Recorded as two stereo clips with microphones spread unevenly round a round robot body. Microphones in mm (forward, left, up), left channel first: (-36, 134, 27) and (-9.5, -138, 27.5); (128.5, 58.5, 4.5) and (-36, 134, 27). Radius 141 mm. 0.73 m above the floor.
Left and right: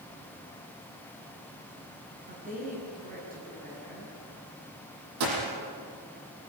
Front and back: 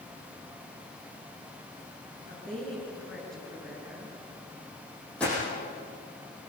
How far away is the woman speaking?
About 7.5 m.